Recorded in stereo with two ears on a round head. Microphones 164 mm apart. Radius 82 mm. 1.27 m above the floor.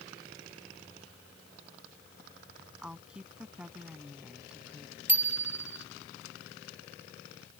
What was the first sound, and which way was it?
A woman speaking, 5° right (ahead or behind).